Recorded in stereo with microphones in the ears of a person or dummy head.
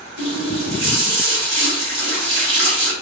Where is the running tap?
75° right (ahead or behind), 1.8 m.